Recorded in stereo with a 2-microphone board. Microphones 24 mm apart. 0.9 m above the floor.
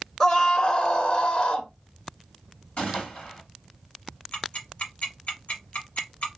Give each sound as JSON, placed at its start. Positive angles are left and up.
{"t": 0.2, "sound": "a scream", "side_deg": 25, "distance_m": 0.7}
{"t": 2.8, "sound": "a gunshot", "side_deg": 65, "distance_m": 2.5}
{"t": 4.3, "sound": "ticking", "side_deg": 80, "distance_m": 1.8}